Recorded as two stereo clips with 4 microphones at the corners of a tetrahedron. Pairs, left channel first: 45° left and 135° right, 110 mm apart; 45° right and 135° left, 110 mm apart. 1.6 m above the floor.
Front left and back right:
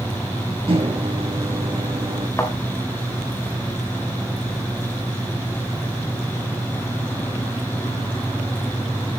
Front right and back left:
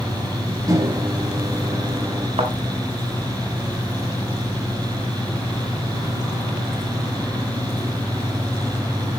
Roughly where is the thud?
Left.